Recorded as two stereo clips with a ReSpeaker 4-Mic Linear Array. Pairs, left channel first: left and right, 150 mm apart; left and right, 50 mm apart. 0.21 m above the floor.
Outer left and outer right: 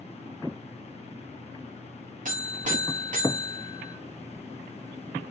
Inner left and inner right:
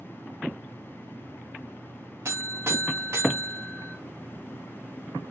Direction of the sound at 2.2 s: 55° right (ahead or behind).